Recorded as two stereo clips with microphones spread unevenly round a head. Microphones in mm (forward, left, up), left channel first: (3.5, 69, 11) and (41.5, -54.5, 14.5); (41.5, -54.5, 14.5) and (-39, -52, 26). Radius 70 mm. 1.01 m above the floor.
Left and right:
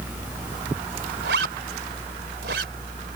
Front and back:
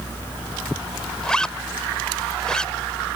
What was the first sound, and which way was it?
A zipper, 85° right.